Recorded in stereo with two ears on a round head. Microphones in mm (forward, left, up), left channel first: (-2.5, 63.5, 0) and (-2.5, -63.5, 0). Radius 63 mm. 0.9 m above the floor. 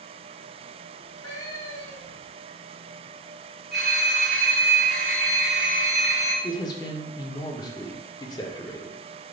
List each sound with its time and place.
0.9 s a cat meowing: 25° left (ahead or behind), 1.1 m
3.7 s a phone ringing: centre (ahead or behind), 1.2 m
6.4 s a man speaking: 30° left (ahead or behind), 0.6 m